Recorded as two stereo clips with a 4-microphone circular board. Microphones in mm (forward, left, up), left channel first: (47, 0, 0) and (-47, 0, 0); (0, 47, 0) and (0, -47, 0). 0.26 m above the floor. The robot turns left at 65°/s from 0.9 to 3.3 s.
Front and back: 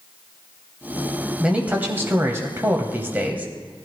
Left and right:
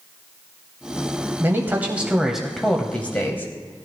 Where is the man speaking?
110° right, 1.1 m; by 3.9 s 125° left, 1.1 m.